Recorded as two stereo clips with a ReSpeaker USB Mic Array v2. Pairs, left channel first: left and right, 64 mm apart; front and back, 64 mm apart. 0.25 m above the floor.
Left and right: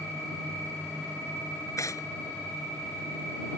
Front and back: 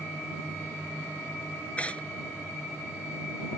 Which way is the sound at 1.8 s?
65° left.